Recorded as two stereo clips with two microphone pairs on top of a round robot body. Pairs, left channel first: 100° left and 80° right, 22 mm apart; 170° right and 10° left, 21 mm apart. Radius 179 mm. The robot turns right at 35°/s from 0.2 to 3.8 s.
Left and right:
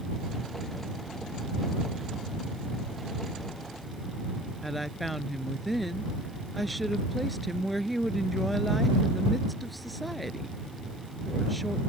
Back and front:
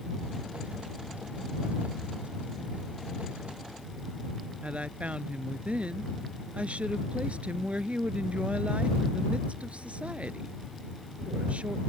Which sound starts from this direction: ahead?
A woman speaking, at 4.6 s.